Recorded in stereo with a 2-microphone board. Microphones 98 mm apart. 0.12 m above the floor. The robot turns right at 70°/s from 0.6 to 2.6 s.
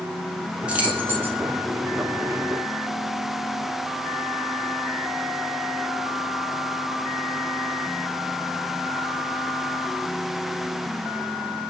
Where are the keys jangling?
10° right (ahead or behind), 0.8 m; by 1.4 s 20° right (ahead or behind), 0.8 m.